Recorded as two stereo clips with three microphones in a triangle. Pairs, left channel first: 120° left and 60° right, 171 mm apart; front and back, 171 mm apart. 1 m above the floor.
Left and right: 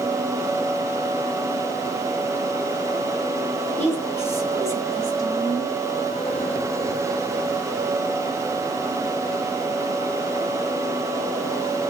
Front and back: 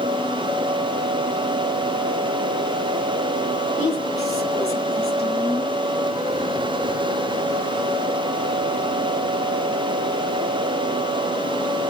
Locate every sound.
3.8 s a woman speaking: 45° left, 7 m; by 5.7 s 55° left, 8 m